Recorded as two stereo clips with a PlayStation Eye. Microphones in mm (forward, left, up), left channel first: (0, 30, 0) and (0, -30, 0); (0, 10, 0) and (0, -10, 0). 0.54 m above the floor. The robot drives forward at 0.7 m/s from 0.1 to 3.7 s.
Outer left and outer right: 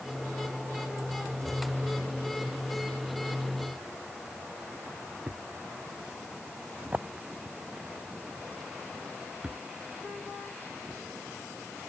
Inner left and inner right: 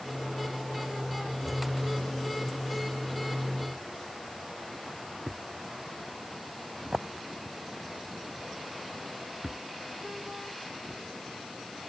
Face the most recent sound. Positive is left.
turn(degrees=-20)  # may be behind; listen again after turning